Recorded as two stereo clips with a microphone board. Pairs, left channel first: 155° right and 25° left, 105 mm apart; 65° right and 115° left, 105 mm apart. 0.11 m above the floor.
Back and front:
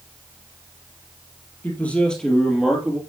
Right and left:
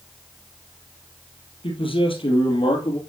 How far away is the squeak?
No squeak in this recording.